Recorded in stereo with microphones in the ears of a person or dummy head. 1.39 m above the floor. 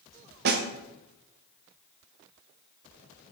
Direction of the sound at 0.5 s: 55° right (ahead or behind).